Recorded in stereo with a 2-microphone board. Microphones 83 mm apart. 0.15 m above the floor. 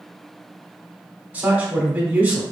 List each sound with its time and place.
1.3 s a man speaking: 20° right (ahead or behind), 1.0 m